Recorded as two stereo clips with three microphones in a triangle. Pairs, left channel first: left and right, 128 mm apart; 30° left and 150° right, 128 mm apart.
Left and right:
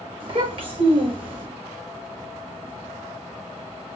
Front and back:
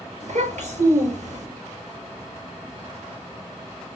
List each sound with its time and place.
0.2 s a child speaking: 135° right, 3.5 m